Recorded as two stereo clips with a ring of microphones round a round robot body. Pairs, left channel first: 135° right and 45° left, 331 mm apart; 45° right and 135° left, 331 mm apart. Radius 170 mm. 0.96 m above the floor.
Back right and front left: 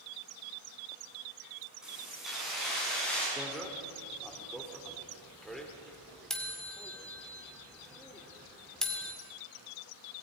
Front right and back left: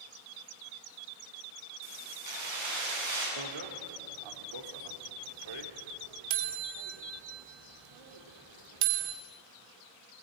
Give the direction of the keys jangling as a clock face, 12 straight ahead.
8 o'clock.